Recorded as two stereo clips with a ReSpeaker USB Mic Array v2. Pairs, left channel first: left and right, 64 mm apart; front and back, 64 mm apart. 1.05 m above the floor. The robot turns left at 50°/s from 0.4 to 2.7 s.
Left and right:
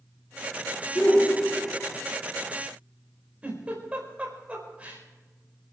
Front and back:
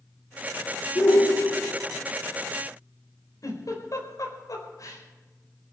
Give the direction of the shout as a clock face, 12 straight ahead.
11 o'clock.